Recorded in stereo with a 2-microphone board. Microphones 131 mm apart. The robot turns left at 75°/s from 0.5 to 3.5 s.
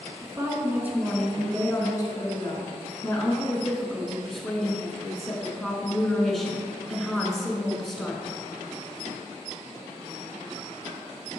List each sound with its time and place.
0.2 s a woman speaking: 130° right, 1.4 m; by 8.4 s 5° left, 1.4 m